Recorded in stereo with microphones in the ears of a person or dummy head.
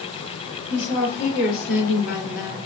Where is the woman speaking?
65° left (ahead or behind), 2.0 m; by 2.6 s 35° left (ahead or behind), 1.2 m.